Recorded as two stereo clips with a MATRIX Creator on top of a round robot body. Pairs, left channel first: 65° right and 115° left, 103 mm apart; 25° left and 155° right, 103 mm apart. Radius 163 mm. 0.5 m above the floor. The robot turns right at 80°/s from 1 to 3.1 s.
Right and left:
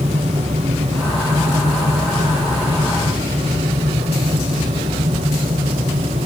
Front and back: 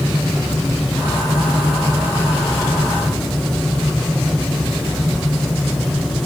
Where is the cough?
I don't hear a cough.